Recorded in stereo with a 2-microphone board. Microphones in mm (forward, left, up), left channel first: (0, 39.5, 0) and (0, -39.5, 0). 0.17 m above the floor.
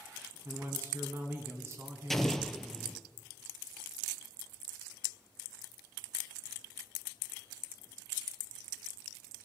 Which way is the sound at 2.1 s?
5° left (ahead or behind).